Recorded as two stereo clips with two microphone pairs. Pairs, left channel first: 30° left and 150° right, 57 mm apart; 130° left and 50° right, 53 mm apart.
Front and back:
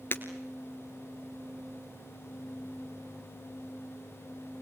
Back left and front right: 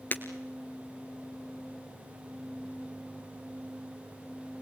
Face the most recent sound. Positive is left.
turn(degrees=80)